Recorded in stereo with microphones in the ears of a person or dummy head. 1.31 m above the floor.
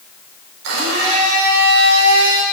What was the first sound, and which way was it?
A blender, 65° right (ahead or behind).